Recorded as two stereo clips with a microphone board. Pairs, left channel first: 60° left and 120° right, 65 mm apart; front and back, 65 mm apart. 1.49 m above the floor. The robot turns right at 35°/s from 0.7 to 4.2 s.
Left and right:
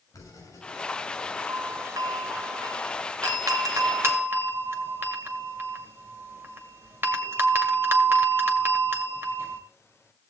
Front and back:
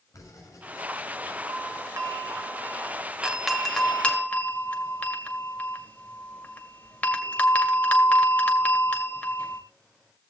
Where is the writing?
30° left, 7 m; by 1.4 s 55° left, 7 m.